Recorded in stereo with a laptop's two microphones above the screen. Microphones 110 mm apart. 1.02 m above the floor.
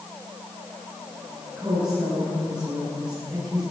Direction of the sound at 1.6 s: 10° right (ahead or behind).